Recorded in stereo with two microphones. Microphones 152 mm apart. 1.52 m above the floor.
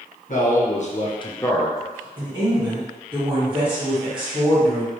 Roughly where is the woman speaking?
Right.